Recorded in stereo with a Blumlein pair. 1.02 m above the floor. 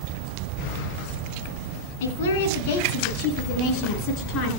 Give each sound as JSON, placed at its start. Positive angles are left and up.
{"t": 2.0, "sound": "a woman speaking", "azimuth_deg": 55, "distance_m": 7.0}